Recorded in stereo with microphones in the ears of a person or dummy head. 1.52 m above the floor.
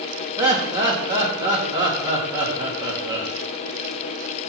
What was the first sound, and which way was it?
Laughter, 25° right (ahead or behind).